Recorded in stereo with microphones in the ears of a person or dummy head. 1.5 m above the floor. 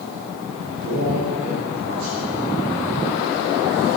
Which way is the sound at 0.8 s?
55° right (ahead or behind).